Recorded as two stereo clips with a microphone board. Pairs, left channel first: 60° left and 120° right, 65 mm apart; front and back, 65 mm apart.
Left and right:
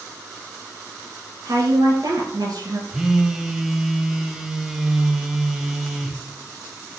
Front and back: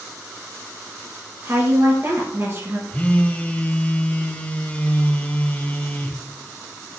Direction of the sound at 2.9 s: 45° right.